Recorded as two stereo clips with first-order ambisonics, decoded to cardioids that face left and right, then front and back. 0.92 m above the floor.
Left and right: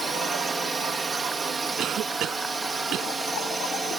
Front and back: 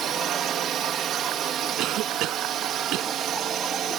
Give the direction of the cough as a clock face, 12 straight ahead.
5 o'clock.